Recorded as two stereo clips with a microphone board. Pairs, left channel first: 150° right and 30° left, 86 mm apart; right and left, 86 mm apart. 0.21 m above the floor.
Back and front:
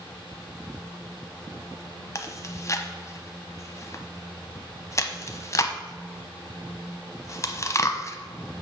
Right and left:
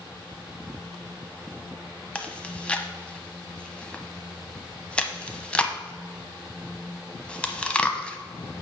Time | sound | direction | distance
2.1 | chewing | 155° right | 0.8 m